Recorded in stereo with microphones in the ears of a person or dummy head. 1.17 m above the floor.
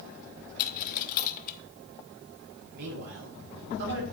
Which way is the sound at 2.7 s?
60° right (ahead or behind).